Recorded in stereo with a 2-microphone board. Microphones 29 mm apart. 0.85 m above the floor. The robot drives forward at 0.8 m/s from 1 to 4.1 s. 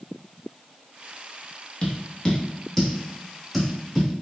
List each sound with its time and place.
1.8 s tapping: 35° left (ahead or behind), 0.9 m; by 4.1 s 10° left (ahead or behind), 2.5 m